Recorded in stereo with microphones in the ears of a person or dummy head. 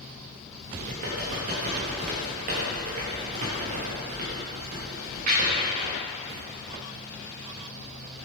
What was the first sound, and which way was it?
Typing on a keyboard, 40° right (ahead or behind).